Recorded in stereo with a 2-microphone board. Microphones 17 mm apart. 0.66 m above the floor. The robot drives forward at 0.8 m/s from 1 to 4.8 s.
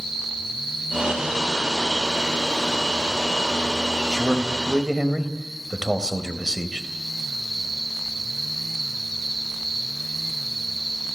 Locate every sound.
4.1 s a man speaking: 35° right (ahead or behind), 3.5 m; by 6.9 s 40° right (ahead or behind), 3.5 m